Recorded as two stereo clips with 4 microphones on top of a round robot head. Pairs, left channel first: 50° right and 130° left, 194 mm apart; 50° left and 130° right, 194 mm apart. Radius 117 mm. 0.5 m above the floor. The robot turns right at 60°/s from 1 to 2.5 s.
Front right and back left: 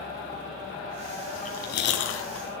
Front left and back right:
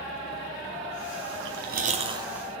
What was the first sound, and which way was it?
Chewing, 110° right.